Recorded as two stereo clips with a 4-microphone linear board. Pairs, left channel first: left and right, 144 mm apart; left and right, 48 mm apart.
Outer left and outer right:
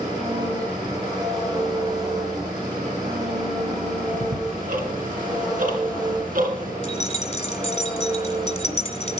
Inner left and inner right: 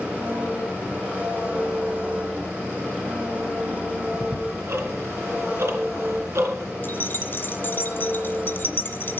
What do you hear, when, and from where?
0.0 s an engine running: 30° right (ahead or behind), 6 m
4.1 s ticking: 75° right (ahead or behind), 3 m
6.8 s keys jangling: 50° left (ahead or behind), 1.8 m